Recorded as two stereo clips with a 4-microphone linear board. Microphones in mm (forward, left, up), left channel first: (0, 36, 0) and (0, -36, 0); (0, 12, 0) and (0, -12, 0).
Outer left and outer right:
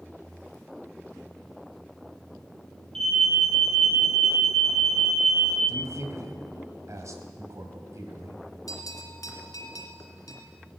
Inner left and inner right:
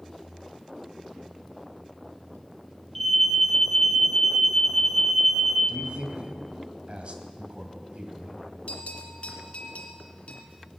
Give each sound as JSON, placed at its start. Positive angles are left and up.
{"t": 3.0, "sound": "an alarm", "side_deg": 10, "distance_m": 1.7}
{"t": 5.7, "sound": "a man speaking", "side_deg": -50, "distance_m": 2.0}
{"t": 8.7, "sound": "a bell", "side_deg": 60, "distance_m": 2.0}